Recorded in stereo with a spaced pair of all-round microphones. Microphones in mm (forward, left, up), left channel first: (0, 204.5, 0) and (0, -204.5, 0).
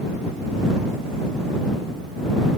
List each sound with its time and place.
Only background noise.